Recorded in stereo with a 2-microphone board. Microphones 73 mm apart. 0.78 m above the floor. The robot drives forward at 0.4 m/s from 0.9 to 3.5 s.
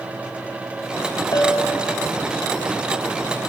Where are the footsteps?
No footsteps in this recording.